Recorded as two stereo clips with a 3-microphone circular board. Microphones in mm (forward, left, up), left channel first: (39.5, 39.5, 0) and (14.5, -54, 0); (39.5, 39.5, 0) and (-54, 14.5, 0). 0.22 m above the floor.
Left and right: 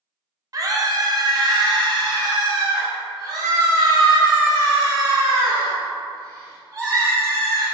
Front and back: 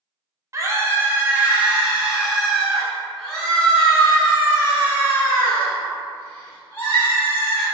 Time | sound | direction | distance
0.5 | a scream | 130° right | 1.4 m